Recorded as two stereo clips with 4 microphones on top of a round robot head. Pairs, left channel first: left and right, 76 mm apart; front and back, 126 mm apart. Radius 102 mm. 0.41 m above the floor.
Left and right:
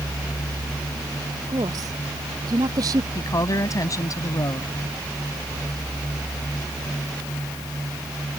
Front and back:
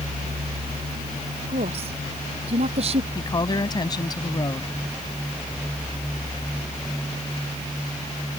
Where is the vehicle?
135° right; by 8.4 s 85° right.